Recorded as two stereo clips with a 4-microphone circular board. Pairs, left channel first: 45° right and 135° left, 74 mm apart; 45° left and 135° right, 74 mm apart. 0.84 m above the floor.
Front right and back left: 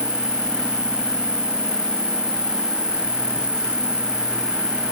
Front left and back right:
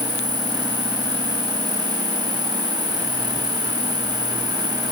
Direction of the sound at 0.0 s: 145° right.